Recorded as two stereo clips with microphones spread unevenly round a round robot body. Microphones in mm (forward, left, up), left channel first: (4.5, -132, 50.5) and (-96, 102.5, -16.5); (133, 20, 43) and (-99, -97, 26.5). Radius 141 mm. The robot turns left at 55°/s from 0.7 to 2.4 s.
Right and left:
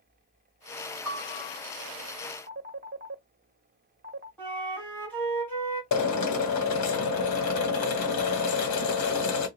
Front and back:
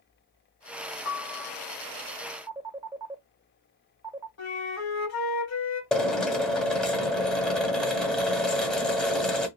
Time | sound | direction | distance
1.1 | a piano | 50° right | 1.4 m
2.5 | a phone ringing | 135° left | 1.1 m
4.4 | a flute | 30° left | 2.5 m
5.9 | a drill | 65° right | 1.2 m